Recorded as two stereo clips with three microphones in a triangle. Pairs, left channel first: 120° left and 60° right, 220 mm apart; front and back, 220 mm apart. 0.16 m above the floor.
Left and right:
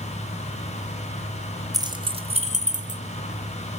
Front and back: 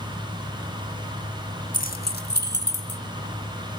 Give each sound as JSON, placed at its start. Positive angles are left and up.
{"t": 1.7, "sound": "keys jangling", "azimuth_deg": 5, "distance_m": 1.1}